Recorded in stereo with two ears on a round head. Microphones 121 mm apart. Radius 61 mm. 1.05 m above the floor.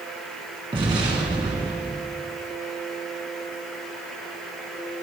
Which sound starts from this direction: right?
An explosion, at 0.7 s.